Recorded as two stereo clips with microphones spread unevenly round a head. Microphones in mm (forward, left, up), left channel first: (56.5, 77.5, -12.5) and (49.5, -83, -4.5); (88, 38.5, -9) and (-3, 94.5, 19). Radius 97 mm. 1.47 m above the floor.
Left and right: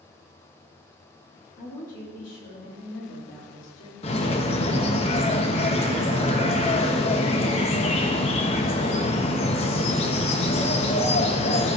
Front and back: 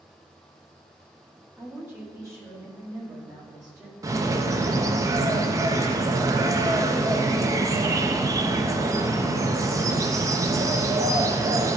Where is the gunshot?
I don't hear a gunshot.